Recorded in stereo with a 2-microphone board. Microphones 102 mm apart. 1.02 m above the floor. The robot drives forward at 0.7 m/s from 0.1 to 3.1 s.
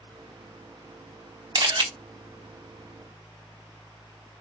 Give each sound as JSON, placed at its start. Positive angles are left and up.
{"t": 1.6, "sound": "a camera shutter", "side_deg": -45, "distance_m": 1.2}